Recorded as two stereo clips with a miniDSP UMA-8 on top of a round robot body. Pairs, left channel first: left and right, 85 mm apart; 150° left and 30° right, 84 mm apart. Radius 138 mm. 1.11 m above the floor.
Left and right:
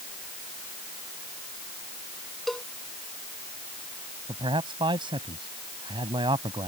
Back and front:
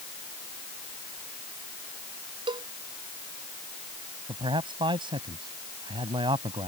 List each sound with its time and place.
2.5 s a cowbell: 5° left
4.3 s a man speaking: 60° right